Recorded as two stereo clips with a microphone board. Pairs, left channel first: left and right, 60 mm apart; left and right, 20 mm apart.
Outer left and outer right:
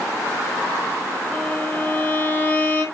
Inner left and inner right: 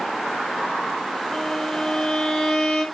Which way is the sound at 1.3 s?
20° left (ahead or behind).